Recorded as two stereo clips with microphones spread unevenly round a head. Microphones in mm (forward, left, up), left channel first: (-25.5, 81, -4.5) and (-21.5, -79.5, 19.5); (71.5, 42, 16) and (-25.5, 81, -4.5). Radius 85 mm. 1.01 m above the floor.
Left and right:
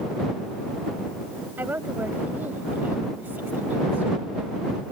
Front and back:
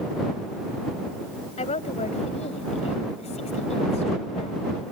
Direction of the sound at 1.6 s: 10° right.